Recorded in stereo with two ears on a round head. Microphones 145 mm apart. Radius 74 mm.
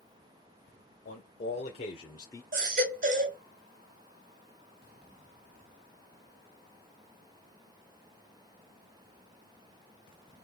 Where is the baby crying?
50° right (ahead or behind), 2 m.